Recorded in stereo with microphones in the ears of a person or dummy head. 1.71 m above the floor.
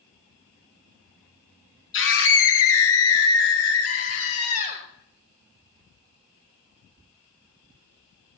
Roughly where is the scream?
Left.